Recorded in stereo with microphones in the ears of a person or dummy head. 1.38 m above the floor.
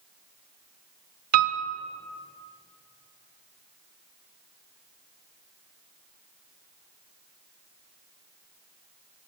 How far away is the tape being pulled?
No tape being pulled in this recording.